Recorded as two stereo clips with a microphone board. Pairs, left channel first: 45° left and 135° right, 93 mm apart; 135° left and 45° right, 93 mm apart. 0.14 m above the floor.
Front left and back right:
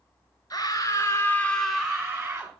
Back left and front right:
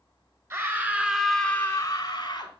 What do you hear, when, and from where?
0.5 s a scream: 10° left, 1.9 m; by 2.5 s 165° left, 2 m